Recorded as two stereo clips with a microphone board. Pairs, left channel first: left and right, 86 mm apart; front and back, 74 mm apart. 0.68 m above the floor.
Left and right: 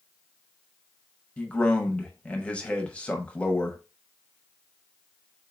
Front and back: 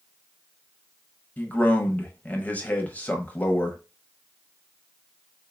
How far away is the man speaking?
About 0.9 m.